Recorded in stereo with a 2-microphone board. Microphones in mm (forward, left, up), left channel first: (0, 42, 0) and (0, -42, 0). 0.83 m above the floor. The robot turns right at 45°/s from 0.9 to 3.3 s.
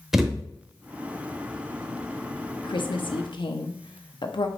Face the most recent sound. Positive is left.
turn(degrees=65)  # may be behind; listen again after turning